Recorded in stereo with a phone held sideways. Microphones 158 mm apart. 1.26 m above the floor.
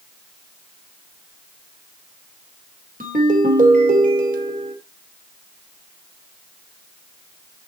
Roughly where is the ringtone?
Right.